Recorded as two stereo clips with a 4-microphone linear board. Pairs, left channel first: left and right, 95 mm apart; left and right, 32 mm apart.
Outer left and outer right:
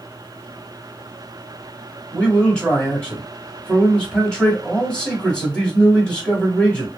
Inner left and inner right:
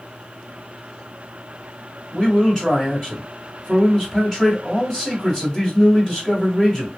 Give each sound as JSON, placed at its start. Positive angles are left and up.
{"t": 2.1, "sound": "a man speaking", "side_deg": 10, "distance_m": 2.0}